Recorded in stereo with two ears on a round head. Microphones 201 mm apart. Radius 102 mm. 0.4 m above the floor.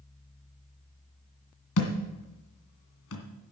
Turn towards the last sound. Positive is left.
turn(degrees=70)  # may be behind; listen again after turning